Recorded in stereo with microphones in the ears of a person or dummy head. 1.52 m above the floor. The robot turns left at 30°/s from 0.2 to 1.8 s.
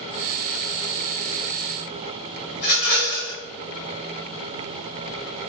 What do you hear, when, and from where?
2.5 s a rattle: 40° left (ahead or behind), 1.1 m